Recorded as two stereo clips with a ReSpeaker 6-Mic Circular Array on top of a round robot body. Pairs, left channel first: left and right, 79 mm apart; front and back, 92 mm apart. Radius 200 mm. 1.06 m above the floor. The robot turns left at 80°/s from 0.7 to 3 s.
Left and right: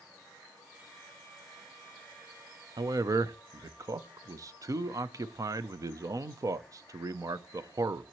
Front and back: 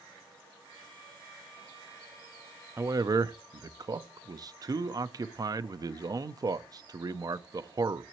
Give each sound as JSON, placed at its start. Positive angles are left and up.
{"t": 2.8, "sound": "a man speaking", "azimuth_deg": -115, "distance_m": 0.7}